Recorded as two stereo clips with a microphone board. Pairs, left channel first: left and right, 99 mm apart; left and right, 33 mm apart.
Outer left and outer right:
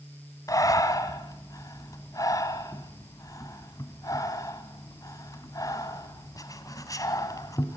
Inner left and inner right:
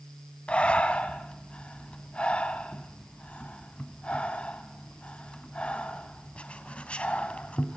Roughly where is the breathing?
Left.